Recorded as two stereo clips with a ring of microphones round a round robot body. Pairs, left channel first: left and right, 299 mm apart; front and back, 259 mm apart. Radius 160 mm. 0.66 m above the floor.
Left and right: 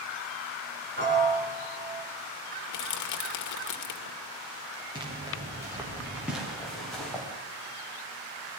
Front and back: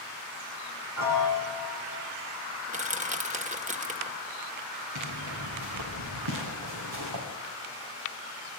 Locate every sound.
1.0 s a piano: 145° right, 5.5 m
2.7 s crushing: 120° left, 1.8 m
5.0 s footsteps: 165° right, 4 m; by 7.2 s 175° left, 6 m